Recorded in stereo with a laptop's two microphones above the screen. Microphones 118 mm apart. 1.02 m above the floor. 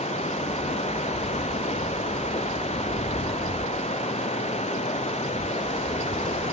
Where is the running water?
65° left (ahead or behind).